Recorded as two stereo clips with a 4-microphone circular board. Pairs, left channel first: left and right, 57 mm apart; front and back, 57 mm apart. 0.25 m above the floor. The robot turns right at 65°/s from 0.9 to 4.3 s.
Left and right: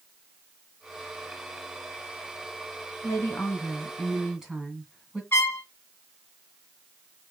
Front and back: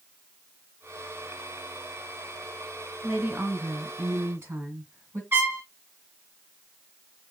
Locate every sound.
3.0 s a woman speaking: 110° left, 1.9 m; by 5.2 s 170° right, 1.9 m
5.3 s a trumpet: 135° left, 1.4 m